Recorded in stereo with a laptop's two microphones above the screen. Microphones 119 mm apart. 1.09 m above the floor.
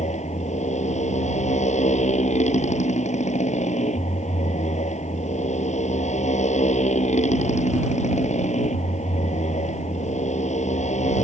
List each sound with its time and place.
0.0 s a motorcycle: 80° left